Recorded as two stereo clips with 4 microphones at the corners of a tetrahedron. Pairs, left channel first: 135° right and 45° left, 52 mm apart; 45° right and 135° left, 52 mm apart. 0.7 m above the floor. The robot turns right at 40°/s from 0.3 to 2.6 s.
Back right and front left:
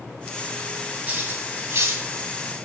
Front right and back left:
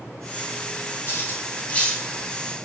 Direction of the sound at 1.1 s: 15° right.